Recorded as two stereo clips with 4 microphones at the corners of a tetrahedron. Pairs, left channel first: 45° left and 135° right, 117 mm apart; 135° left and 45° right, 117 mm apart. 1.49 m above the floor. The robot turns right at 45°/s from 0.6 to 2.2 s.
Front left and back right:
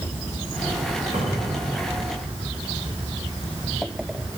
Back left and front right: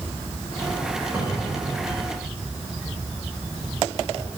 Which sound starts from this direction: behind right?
A cupboard door, at 1.1 s.